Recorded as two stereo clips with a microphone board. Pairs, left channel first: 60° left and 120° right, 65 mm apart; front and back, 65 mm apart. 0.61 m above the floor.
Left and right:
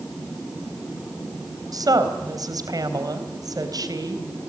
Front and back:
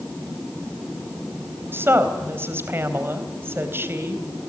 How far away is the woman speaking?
About 3.5 m.